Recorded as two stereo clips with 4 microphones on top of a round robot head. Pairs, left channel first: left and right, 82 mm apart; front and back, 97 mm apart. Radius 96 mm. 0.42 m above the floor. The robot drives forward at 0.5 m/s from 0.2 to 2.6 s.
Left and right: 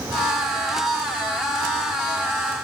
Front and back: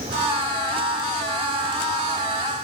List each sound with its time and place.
Only background noise.